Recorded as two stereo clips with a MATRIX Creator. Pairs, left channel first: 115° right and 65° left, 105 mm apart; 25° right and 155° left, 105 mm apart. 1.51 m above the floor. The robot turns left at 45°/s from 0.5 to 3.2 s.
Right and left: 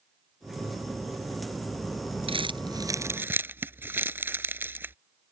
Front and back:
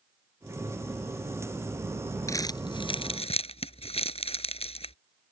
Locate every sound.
2.3 s crumpling: 40° left; by 5.0 s 5° right